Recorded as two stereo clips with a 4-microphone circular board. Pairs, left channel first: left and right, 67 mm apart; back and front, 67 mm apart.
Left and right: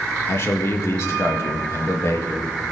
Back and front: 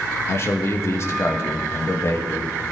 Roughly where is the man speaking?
Behind left.